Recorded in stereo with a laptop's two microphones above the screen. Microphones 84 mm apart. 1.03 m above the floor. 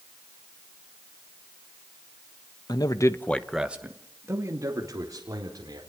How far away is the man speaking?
About 1.4 m.